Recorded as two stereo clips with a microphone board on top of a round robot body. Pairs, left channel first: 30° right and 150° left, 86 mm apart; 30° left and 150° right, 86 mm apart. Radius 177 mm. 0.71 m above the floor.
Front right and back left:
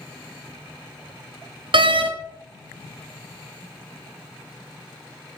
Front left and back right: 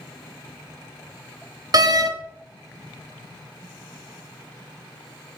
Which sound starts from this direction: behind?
A door slam, at 1.7 s.